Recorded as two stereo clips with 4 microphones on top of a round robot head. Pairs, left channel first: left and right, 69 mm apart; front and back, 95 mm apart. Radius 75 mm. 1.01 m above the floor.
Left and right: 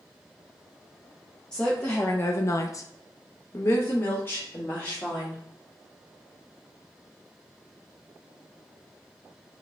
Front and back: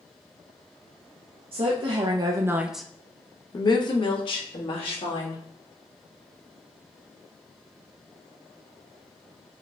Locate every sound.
1.5 s a woman speaking: 165° left, 0.9 m; by 5.4 s 20° left, 1.9 m